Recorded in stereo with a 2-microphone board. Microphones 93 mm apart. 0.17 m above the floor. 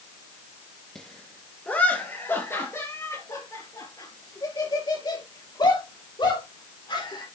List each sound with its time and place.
0.9 s laughter: 5° left (ahead or behind), 2.0 m; by 7.2 s 60° left (ahead or behind), 4.5 m